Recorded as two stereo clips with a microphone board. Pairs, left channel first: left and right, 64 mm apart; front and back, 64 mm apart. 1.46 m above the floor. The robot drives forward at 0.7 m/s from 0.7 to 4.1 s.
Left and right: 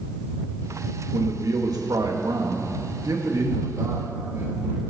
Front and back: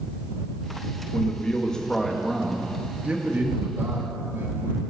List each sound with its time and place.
1.1 s a man speaking: 65° right, 1.8 m; by 4.9 s 130° right, 2 m